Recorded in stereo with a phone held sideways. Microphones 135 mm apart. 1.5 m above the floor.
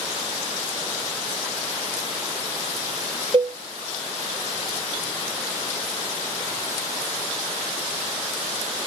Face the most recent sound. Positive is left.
turn(degrees=-40)  # may be behind; listen again after turning